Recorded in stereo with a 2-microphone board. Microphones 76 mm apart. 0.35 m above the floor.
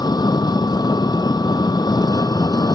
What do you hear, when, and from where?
0.0 s an engine running: 60° left (ahead or behind)